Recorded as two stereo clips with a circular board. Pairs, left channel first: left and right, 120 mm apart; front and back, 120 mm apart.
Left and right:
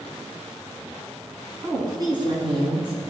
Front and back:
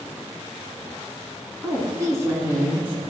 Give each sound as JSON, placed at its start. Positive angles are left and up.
{"t": 1.6, "sound": "a woman speaking", "azimuth_deg": -135, "distance_m": 1.8}